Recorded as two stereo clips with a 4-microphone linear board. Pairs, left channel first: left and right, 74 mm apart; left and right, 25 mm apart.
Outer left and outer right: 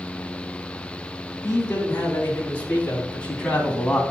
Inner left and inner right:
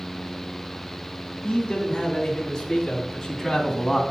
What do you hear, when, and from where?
1.4 s a man speaking: 30° left (ahead or behind), 4 m; by 4.0 s 10° left (ahead or behind), 3 m